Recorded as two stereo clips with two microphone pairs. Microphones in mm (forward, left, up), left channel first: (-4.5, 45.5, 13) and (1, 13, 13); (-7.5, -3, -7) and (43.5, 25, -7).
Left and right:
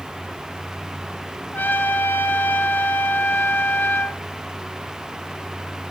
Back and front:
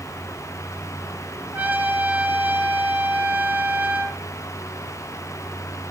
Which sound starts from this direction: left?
A trumpet, at 1.5 s.